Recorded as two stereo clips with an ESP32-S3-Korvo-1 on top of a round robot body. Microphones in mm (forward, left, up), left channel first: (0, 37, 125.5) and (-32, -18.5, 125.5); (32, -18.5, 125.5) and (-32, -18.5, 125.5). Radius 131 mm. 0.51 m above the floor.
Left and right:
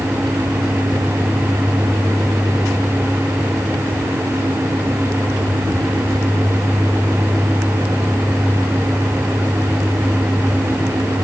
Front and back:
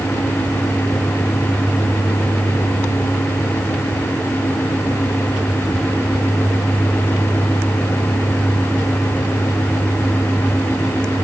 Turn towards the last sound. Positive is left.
No sound to turn to.